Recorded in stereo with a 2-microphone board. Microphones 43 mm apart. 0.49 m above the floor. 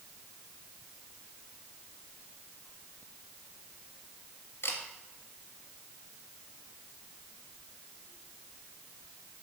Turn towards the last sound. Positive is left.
turn(degrees=75)  # may be behind; listen again after turning